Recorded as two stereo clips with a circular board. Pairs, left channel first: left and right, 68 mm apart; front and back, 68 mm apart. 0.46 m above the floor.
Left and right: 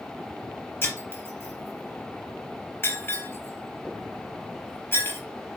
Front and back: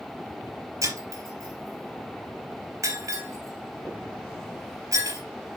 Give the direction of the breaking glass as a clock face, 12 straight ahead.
7 o'clock.